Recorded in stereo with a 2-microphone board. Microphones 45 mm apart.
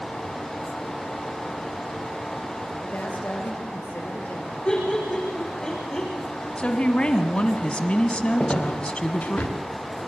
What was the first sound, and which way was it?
A woman speaking, 40° left (ahead or behind).